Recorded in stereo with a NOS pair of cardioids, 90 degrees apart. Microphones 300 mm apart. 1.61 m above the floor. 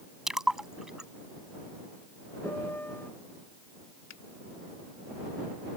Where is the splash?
Straight ahead.